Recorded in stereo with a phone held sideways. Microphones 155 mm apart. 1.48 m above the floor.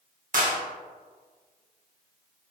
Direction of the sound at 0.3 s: 60° right (ahead or behind).